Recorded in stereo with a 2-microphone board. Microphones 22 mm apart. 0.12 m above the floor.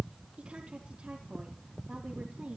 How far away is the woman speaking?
About 4.5 m.